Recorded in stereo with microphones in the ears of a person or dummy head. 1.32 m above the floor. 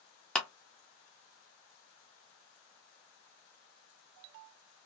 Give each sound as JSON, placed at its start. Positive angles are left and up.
{"t": 0.3, "sound": "a clap", "side_deg": 5, "distance_m": 0.6}